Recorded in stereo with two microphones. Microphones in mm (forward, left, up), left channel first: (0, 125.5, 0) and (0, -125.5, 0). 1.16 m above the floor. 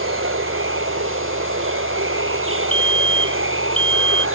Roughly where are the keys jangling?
I don't hear keys jangling.